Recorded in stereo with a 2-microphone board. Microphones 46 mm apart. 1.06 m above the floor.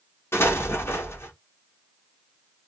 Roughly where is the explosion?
Left.